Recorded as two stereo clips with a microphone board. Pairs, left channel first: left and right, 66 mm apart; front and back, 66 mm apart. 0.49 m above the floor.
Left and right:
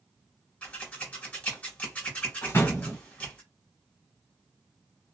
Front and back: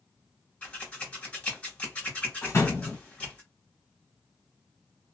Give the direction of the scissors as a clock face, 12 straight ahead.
11 o'clock.